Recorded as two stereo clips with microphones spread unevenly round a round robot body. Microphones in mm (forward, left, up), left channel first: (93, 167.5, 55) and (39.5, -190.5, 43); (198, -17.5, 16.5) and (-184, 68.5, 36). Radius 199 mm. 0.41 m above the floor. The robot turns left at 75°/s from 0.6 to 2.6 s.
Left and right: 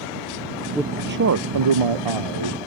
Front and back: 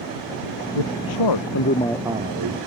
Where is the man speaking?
10° right; by 2.6 s 145° right.